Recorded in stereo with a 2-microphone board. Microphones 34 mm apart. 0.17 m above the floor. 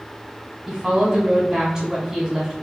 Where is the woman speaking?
20° right (ahead or behind), 1.5 m.